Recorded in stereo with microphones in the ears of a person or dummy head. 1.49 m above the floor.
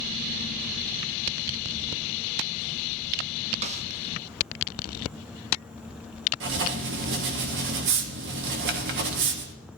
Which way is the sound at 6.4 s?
55° right (ahead or behind).